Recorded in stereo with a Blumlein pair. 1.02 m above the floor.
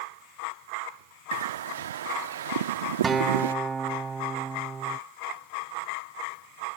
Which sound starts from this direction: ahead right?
A bird, at 1.3 s.